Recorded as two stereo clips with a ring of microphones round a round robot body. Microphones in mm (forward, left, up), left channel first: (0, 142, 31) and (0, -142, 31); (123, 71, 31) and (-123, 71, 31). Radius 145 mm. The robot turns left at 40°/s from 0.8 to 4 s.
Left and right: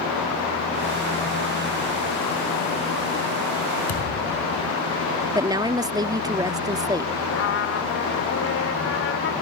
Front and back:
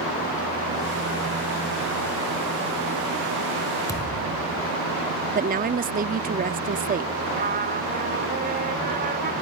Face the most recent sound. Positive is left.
turn(degrees=130)